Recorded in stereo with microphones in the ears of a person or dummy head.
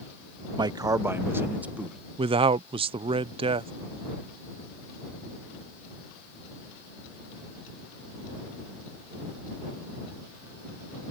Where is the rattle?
No rattle in this recording.